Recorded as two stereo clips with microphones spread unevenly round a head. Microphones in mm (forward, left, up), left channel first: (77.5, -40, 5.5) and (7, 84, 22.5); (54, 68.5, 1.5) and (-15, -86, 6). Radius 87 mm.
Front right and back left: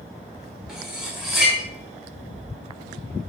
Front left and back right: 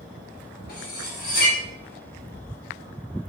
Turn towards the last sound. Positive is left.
turn(degrees=30)